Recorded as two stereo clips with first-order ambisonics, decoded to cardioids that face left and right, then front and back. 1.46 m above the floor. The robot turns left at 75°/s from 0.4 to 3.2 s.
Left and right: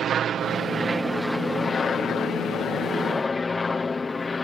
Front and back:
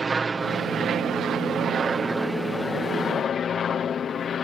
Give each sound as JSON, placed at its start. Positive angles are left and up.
{"t": 0.0, "sound": "an aircraft", "azimuth_deg": -120}